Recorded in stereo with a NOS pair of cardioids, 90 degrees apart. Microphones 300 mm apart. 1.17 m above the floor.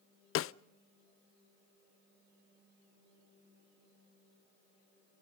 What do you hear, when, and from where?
0.3 s a snare drum: 45° left, 0.5 m